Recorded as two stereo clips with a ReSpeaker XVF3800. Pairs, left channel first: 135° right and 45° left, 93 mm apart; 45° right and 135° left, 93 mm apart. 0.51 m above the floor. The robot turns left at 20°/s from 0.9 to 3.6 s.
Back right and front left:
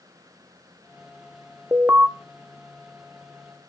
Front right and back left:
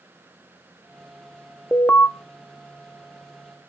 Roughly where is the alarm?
Ahead.